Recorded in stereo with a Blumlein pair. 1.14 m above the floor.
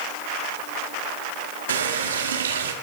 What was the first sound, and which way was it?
A running tap, 65° right.